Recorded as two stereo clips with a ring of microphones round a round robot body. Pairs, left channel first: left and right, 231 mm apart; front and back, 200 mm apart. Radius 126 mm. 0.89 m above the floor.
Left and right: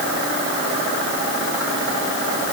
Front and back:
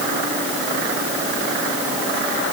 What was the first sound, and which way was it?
Only background noise.